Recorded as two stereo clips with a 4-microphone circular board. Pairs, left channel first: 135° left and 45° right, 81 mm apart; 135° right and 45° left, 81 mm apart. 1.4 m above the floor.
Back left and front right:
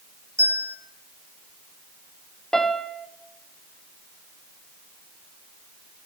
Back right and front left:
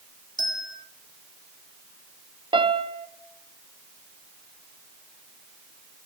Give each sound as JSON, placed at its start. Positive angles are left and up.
{"t": 0.4, "sound": "a bell", "azimuth_deg": -100, "distance_m": 3.5}
{"t": 2.5, "sound": "a piano", "azimuth_deg": 55, "distance_m": 0.9}